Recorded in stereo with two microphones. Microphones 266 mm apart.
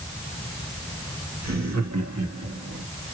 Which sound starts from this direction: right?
Laughter, at 1.4 s.